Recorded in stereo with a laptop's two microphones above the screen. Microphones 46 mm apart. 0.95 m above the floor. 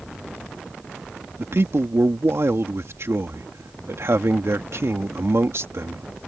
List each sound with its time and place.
1.4 s a man speaking: 65° right (ahead or behind)